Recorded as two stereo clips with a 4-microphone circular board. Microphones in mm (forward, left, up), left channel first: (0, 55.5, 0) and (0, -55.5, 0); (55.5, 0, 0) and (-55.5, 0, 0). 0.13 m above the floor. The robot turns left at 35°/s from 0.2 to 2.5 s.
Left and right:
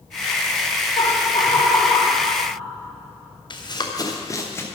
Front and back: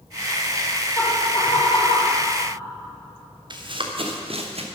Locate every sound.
1.0 s laughter: 70° left, 4 m; by 2.2 s 25° left, 4 m
3.5 s running footsteps: 135° left, 2.5 m; by 4.6 s 160° left, 2.5 m